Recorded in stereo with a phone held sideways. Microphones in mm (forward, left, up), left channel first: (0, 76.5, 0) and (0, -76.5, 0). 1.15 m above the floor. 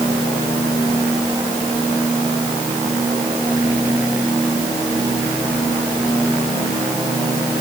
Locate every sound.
Only background noise.